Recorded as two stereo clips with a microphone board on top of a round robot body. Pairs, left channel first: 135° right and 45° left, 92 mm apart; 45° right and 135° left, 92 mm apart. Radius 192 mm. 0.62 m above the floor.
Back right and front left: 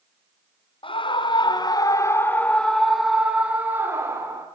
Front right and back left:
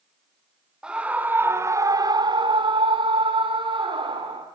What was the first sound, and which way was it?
A scream, 145° right.